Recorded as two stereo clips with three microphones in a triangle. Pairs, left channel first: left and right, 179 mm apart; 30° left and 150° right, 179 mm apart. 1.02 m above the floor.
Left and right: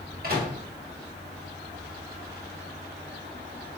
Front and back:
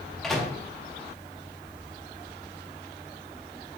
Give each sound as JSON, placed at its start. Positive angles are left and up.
{"t": 0.2, "sound": "a microwave", "azimuth_deg": -60, "distance_m": 0.8}